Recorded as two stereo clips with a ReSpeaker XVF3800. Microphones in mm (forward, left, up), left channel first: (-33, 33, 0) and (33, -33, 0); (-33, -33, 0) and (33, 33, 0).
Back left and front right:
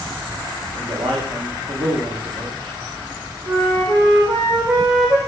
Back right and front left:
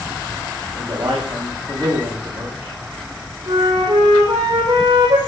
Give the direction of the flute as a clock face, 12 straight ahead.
12 o'clock.